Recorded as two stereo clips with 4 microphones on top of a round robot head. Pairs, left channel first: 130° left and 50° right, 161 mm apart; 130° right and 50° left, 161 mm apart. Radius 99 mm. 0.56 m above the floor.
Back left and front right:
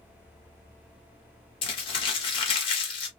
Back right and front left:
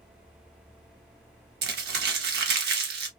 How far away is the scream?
I don't hear a scream.